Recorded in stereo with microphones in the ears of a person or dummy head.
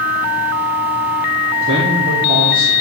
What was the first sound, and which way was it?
A man speaking, 45° right (ahead or behind).